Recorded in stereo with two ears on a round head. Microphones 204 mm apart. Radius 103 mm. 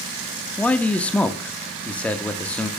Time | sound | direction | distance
0.6 | a man speaking | 5° left (ahead or behind) | 0.6 m